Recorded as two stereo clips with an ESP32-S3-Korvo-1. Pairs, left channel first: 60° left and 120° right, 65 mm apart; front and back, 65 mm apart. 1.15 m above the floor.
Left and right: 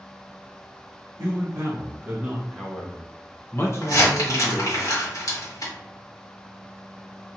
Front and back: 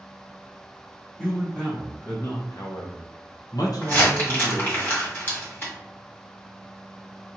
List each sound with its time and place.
1.2 s a man speaking: 80° right, 1.0 m; by 4.8 s 35° left, 1.3 m
3.8 s crumpling: 50° left, 1.7 m